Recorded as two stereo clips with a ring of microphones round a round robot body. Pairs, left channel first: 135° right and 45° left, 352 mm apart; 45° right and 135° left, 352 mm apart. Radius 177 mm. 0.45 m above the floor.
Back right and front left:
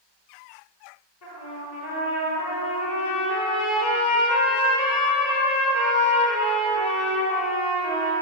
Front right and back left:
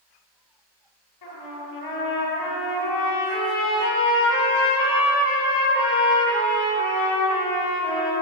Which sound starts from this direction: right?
A trumpet, at 1.2 s.